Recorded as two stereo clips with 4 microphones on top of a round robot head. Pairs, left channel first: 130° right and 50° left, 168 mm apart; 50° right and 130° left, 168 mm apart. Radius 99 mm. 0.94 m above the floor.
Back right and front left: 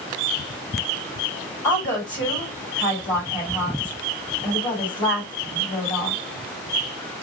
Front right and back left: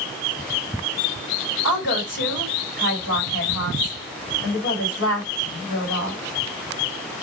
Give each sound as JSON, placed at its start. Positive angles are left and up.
{"t": 1.6, "sound": "a woman speaking", "azimuth_deg": -60, "distance_m": 2.5}